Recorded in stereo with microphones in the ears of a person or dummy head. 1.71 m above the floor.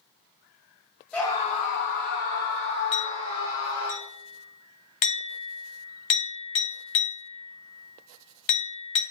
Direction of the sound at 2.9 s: 25° left (ahead or behind).